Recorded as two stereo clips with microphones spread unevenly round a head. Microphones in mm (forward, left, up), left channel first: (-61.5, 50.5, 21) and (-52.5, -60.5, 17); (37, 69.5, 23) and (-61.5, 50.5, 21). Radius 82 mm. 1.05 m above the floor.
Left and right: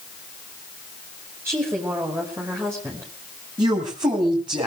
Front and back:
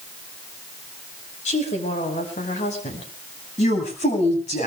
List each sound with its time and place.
1.4 s a woman speaking: 10° right, 5.5 m
3.6 s a woman speaking: 20° right, 6.5 m